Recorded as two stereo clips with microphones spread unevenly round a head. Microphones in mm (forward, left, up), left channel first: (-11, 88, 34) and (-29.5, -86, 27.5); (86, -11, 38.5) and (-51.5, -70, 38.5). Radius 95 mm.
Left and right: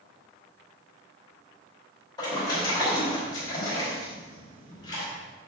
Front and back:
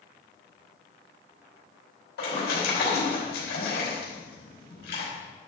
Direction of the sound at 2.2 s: 15° left.